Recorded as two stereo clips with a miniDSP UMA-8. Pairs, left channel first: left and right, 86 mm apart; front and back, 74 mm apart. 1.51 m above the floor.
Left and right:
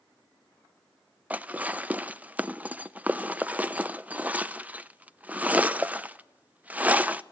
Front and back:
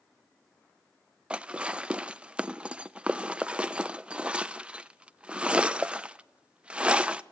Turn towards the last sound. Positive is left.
turn(degrees=-130)